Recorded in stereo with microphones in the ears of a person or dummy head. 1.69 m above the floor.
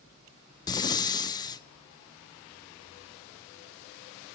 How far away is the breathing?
About 0.5 m.